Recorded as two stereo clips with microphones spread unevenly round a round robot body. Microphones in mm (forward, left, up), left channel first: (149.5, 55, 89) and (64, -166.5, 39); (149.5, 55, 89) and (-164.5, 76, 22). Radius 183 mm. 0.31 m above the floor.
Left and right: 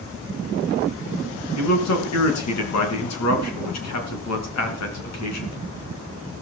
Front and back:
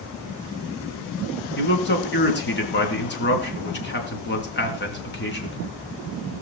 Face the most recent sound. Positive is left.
turn(degrees=55)